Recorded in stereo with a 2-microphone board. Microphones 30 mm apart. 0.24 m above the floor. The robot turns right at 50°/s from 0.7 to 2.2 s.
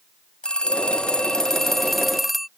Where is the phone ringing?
110° left; by 2.5 s 175° right.